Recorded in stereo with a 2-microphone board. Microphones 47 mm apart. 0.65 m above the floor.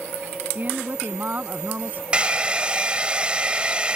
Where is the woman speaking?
40° right (ahead or behind).